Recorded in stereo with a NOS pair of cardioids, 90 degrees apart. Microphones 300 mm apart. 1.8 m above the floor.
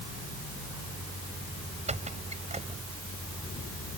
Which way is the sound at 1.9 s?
25° right.